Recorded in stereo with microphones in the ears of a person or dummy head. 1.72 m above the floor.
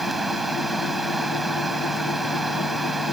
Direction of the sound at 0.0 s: Centre (ahead or behind).